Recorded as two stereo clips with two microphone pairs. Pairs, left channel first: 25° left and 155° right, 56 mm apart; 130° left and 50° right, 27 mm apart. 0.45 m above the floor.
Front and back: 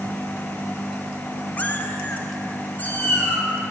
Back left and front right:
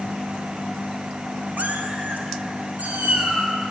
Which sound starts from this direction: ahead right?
A cat meowing, at 1.6 s.